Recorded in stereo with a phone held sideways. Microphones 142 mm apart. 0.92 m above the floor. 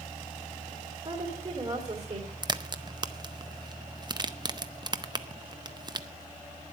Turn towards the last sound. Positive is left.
turn(degrees=-30)  # may be behind; listen again after turning